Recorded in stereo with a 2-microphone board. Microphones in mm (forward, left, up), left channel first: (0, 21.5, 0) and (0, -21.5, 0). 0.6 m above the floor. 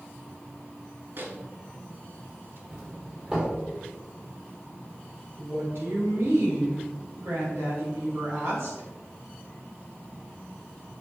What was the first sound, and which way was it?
A microwave, 50° right (ahead or behind).